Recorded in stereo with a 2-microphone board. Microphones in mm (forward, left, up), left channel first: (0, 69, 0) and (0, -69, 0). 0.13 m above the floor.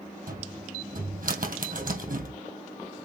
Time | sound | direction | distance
0.3 | a cupboard door | 75° right (ahead or behind) | 2.5 m